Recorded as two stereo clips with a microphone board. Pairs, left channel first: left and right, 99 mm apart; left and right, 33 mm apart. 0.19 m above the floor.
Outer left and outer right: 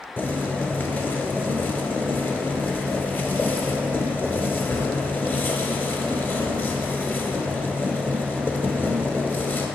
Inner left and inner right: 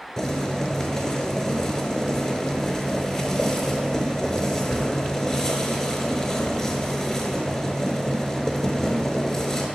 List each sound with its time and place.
0.2 s boiling: 20° left (ahead or behind), 0.7 m